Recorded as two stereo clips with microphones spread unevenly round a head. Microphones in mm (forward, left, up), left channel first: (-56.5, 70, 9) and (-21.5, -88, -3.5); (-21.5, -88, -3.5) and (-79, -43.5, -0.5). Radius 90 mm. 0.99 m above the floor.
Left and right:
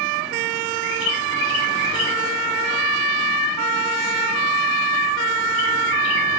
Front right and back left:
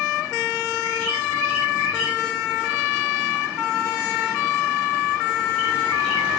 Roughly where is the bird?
Left.